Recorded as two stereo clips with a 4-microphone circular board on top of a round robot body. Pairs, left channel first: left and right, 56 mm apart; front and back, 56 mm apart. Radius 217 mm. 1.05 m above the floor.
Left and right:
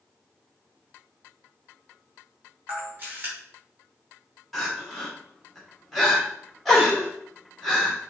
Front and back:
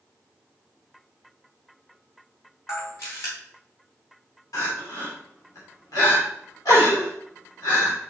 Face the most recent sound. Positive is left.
turn(degrees=5)